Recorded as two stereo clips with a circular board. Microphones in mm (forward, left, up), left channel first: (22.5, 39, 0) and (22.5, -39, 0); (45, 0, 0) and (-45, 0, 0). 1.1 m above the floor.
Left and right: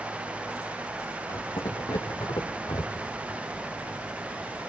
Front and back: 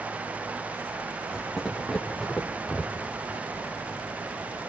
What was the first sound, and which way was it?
Footsteps, 90° left.